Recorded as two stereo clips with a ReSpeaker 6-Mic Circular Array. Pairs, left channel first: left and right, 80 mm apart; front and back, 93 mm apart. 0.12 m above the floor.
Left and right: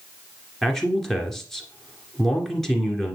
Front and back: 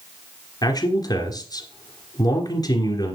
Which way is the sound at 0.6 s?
5° left.